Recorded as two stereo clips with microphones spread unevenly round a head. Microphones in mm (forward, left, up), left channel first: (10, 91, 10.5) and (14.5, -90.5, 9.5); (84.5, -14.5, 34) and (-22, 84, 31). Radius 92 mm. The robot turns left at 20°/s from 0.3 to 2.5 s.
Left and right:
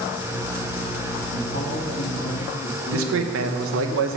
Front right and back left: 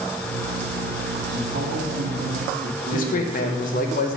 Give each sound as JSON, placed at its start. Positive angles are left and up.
{"t": 1.3, "sound": "a man speaking", "azimuth_deg": 145, "distance_m": 1.6}
{"t": 2.9, "sound": "a man speaking", "azimuth_deg": -80, "distance_m": 0.8}